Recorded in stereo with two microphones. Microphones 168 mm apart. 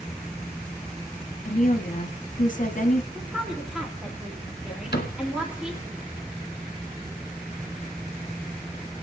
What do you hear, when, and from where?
1.4 s a woman speaking: 50° left (ahead or behind), 1.0 m
3.1 s a woman speaking: 5° right (ahead or behind), 1.8 m
4.9 s a cupboard door: 75° left (ahead or behind), 1.6 m